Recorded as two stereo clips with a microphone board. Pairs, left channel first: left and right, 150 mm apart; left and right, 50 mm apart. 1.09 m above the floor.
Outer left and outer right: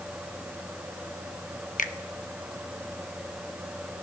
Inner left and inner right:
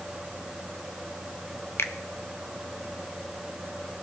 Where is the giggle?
No giggle in this recording.